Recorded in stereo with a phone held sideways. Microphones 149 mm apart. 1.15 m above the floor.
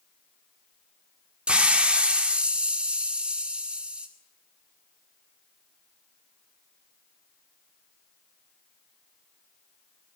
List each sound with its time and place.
1.5 s a hiss: 5° right (ahead or behind), 2 m